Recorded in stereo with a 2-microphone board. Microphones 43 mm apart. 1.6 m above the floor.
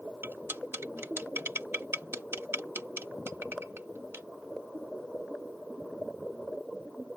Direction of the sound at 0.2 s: 65° right (ahead or behind).